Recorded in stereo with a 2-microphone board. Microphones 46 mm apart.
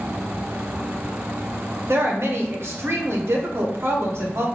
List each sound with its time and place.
1.9 s a woman speaking: 60° right (ahead or behind), 1.0 m